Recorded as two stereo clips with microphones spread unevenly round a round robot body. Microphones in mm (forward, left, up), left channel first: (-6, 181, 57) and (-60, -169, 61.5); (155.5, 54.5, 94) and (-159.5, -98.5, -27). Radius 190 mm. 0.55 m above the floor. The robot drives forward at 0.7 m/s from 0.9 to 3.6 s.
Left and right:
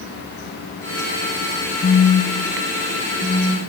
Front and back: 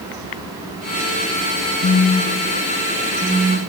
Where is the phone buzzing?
120° left, 1.2 m; by 3.6 s 160° left, 1.9 m.